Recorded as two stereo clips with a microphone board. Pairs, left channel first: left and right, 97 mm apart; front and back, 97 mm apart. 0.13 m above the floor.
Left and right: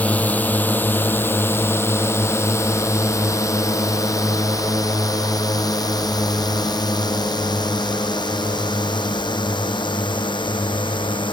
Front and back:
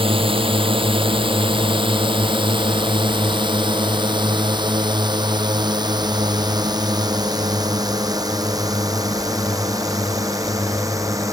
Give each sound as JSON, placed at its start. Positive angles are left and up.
{"t": 0.0, "sound": "a drone", "azimuth_deg": 165}